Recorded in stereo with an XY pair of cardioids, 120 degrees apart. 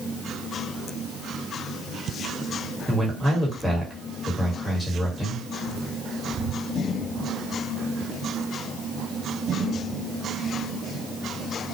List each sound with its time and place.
2.9 s a man speaking: 5° right, 1.3 m